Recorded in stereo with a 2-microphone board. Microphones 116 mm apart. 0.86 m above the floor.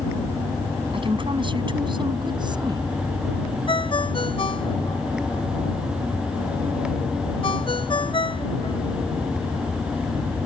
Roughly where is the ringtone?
Left.